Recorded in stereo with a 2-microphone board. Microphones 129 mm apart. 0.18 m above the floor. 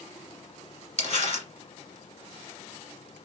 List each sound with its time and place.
1.0 s crumpling: 50° left (ahead or behind), 1.9 m